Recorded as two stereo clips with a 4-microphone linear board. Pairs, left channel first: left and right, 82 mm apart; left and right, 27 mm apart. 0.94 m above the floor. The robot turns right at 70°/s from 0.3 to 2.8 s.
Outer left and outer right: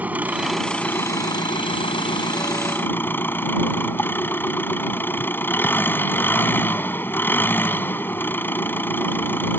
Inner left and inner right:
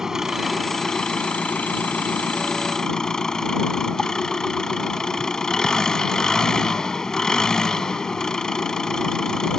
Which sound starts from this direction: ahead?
An engine running, at 0.0 s.